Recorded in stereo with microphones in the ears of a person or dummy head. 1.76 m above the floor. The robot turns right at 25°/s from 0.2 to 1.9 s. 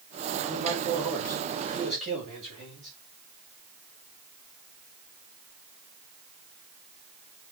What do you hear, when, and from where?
0.4 s a man speaking: straight behind, 7.5 m; by 2.9 s 140° right, 7.5 m